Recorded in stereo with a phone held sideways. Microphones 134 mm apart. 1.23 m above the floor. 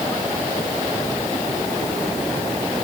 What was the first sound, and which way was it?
Only background noise.